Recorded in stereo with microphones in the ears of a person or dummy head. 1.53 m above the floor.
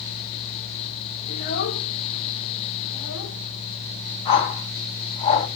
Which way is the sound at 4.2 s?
35° left (ahead or behind).